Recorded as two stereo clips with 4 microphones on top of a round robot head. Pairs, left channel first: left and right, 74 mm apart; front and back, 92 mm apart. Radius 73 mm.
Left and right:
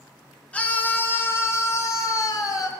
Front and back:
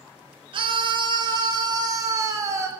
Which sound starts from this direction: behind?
A scream, at 0.5 s.